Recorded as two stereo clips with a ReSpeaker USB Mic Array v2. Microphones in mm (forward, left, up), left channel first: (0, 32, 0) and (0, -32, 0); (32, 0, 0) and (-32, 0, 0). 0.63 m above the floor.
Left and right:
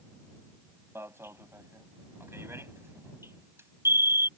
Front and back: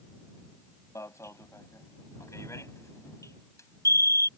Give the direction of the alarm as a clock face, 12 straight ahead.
1 o'clock.